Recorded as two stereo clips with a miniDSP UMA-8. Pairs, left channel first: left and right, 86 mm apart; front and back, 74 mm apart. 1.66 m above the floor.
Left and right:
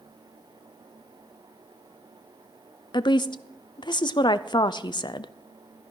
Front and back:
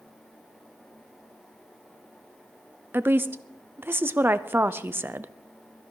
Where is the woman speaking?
120° left, 0.6 m.